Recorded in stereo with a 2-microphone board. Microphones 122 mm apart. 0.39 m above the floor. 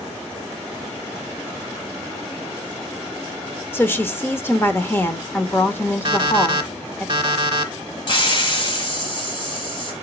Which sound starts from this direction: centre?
A woman speaking, at 3.7 s.